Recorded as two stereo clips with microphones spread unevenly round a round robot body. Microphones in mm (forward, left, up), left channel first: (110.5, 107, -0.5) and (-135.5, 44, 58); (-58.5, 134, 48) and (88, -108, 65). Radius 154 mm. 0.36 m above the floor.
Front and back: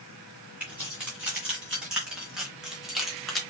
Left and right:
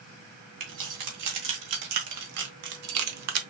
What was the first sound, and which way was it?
Keys jangling, 75° right.